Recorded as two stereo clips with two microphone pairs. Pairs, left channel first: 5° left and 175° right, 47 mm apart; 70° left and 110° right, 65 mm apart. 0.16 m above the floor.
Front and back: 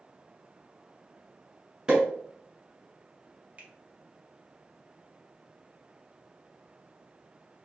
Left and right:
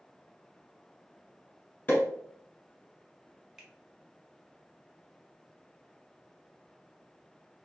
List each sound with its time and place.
1.9 s a pop: 120° left, 1.2 m
3.6 s a finger snap: 170° left, 1.0 m